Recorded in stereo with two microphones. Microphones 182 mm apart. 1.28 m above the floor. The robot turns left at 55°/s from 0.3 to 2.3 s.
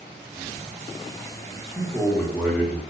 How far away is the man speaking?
About 1.3 m.